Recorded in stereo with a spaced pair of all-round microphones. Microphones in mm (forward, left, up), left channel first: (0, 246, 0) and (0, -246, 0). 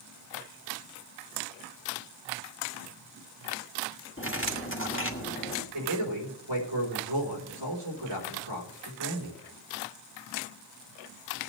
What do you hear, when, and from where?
4.2 s cutlery clinking: 25° left (ahead or behind), 1.5 m
5.7 s a man speaking: 60° right (ahead or behind), 4 m